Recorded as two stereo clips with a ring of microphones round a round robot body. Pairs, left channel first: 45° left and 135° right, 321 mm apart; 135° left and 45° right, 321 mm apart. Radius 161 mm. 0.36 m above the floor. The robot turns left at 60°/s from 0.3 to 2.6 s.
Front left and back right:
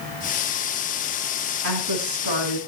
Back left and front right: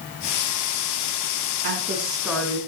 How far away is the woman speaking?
About 4.5 m.